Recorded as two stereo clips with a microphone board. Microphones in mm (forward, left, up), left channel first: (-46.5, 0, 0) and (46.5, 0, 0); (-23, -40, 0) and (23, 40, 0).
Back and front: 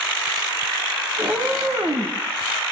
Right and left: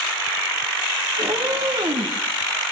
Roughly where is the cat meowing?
Ahead left.